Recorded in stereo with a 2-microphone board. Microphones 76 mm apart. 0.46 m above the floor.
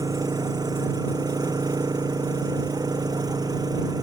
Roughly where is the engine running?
Right.